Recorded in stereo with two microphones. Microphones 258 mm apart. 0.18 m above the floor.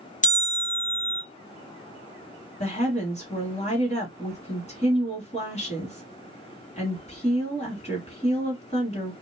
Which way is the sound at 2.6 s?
25° left (ahead or behind).